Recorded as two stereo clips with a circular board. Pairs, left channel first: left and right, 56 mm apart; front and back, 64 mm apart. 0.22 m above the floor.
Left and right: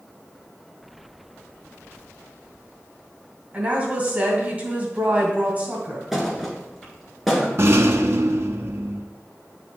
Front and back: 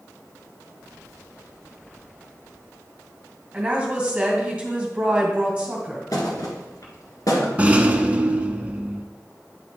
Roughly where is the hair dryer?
No hair dryer in this recording.